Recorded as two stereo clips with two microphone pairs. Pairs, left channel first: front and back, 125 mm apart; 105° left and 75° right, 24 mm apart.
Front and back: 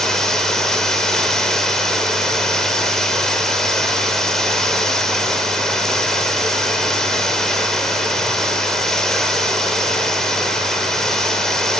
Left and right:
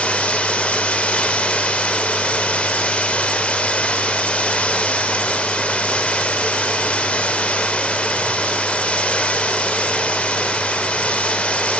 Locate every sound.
0.0 s running water: 85° left, 1.7 m